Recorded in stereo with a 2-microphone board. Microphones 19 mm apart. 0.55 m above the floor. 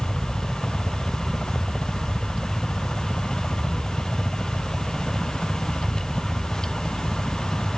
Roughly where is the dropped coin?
No dropped coin in this recording.